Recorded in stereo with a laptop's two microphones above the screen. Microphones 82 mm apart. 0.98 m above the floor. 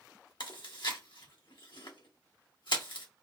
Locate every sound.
0.4 s chewing: 75° left (ahead or behind), 1.3 m